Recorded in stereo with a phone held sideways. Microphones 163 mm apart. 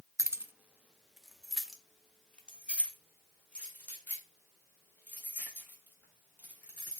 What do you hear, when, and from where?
0.2 s keys jangling: 20° right (ahead or behind), 0.6 m; by 7.0 s 10° left (ahead or behind), 4 m